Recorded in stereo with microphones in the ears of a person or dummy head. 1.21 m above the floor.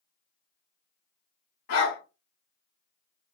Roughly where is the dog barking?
Left.